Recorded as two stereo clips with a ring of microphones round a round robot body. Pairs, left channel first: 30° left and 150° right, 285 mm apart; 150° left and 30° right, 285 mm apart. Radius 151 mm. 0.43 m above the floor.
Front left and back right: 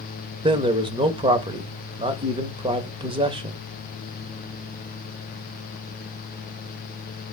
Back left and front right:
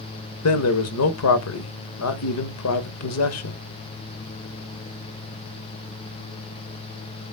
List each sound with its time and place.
0.4 s a man speaking: 140° left, 1.8 m